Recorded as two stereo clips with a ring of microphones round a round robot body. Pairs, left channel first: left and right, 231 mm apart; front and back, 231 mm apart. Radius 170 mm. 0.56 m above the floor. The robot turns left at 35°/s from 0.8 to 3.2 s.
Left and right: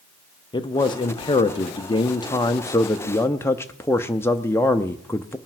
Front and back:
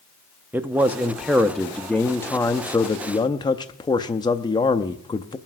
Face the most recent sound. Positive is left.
turn(degrees=30)